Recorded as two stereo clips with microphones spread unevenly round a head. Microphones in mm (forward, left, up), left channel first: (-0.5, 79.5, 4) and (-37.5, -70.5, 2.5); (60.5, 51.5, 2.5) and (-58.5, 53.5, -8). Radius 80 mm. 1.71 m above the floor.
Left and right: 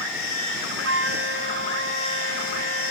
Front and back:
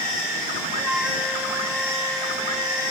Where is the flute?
90° right.